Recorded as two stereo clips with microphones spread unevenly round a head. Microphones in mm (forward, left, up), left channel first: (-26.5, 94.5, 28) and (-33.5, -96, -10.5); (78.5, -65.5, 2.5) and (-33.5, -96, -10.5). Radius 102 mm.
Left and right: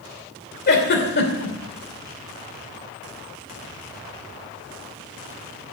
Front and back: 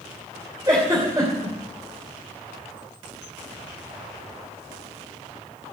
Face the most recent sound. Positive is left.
turn(degrees=120)